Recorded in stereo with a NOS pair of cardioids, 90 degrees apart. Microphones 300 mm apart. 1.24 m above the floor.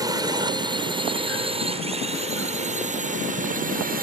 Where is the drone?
15° right; by 4.0 s 30° right.